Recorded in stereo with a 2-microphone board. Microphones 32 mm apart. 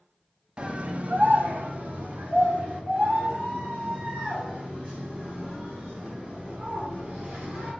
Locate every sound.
0.6 s a scream: 30° right (ahead or behind), 0.6 m; by 7.7 s 45° right (ahead or behind), 5 m